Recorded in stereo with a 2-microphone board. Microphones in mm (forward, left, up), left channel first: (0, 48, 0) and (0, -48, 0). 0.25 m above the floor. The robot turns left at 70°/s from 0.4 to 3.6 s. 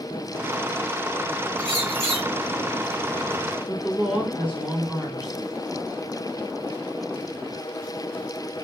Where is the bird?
50° right, 3 m; by 2.3 s 100° right, 3 m.